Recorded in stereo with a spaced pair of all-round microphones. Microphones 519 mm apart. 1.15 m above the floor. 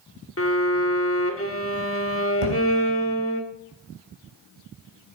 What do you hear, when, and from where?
0.4 s a violin: 25° left (ahead or behind), 1.7 m
2.4 s a thud: 70° right (ahead or behind), 4.5 m